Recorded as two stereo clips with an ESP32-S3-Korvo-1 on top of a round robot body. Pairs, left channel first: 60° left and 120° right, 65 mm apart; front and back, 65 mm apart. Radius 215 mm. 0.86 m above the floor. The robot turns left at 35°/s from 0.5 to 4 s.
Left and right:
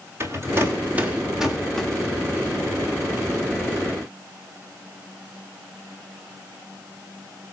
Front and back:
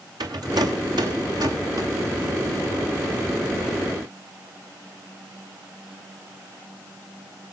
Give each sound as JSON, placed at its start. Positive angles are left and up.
{"t": 0.2, "sound": "a rattle", "azimuth_deg": -170, "distance_m": 1.9}